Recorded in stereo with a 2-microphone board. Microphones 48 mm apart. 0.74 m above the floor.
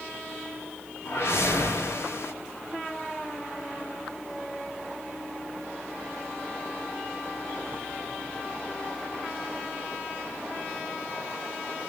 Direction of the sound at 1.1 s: 70° left (ahead or behind).